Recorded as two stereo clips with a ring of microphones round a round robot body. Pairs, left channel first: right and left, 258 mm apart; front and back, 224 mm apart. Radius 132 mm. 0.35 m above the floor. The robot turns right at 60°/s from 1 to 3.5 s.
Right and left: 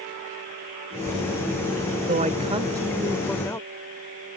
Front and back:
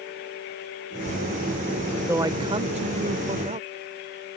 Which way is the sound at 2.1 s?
115° left.